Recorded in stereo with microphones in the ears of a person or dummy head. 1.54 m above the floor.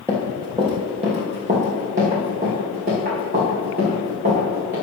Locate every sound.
0.1 s running footsteps: 15° right (ahead or behind), 1.8 m; by 4.7 s 45° right (ahead or behind), 6 m